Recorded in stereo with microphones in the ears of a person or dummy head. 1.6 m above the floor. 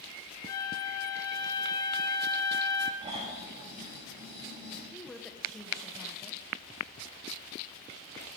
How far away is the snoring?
About 4 m.